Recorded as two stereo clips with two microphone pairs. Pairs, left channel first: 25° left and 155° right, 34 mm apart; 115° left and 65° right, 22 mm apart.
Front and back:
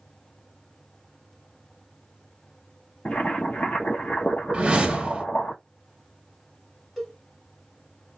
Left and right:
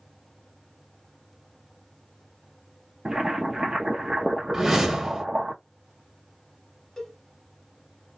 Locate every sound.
3.0 s boiling: 5° right, 0.7 m
4.5 s a whoosh: 125° right, 0.9 m
7.0 s a cowbell: 105° left, 1.2 m